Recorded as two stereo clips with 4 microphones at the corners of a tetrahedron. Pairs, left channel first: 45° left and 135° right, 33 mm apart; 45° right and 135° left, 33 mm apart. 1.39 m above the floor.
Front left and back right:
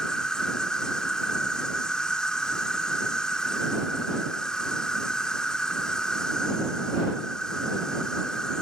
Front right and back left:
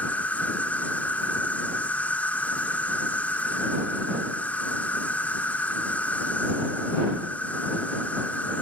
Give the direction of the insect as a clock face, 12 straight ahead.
1 o'clock.